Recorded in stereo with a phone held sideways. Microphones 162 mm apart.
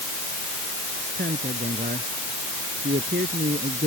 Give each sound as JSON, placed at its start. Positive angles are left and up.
{"t": 1.2, "sound": "a man speaking", "side_deg": -85}